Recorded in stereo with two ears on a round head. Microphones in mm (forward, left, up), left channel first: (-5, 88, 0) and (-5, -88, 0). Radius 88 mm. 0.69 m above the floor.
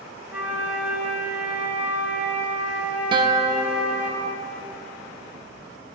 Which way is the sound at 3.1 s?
25° right (ahead or behind).